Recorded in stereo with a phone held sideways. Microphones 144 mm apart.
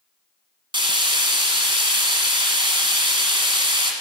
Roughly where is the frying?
Right.